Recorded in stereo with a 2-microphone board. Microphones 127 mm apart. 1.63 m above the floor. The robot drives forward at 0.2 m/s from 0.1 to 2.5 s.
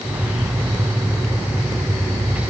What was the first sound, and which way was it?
Only background noise.